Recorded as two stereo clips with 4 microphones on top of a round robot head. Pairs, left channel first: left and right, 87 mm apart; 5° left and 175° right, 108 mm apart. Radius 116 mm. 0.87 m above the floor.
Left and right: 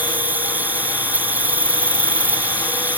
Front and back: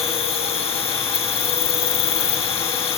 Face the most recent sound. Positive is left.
turn(degrees=-20)